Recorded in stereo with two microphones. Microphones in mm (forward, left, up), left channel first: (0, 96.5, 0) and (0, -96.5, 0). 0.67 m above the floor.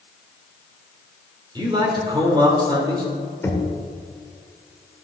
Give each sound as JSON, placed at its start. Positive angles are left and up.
{"t": 1.6, "sound": "a man speaking", "side_deg": -25, "distance_m": 2.5}
{"t": 3.4, "sound": "knocking", "side_deg": 15, "distance_m": 1.3}